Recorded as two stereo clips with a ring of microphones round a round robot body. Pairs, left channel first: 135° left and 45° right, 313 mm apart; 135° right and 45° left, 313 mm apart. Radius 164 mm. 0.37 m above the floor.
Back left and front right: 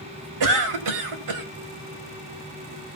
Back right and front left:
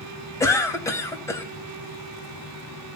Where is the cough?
55° right, 2.5 m.